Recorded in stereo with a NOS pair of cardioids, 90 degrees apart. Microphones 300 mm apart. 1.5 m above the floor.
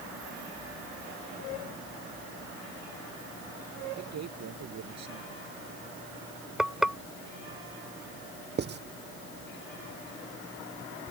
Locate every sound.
4.0 s a man speaking: 60° right
6.6 s frying: straight ahead
8.6 s writing: 35° right